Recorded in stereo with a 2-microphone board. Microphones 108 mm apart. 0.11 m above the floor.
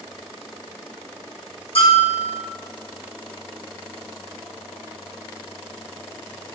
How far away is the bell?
About 1.3 m.